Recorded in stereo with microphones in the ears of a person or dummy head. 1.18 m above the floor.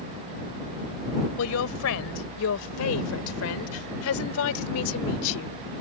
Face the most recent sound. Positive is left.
turn(degrees=80)